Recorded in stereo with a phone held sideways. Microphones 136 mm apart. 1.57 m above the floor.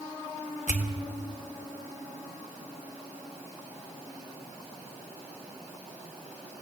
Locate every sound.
0.7 s a pop: 70° left (ahead or behind), 2.5 m